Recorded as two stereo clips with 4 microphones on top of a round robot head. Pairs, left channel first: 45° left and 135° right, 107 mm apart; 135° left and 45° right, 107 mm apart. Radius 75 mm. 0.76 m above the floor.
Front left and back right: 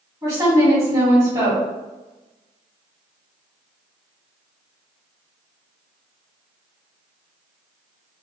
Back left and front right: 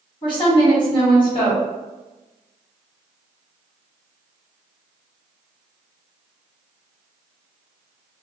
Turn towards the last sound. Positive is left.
turn(degrees=165)